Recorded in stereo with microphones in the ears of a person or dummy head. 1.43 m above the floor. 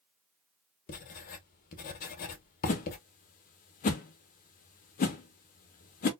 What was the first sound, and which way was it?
Writing, 50° left (ahead or behind).